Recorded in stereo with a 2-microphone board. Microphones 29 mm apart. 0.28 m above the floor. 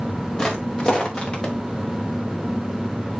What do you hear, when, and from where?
0.4 s footsteps: 25° left (ahead or behind), 4 m; by 1.5 s 30° left (ahead or behind), 3.5 m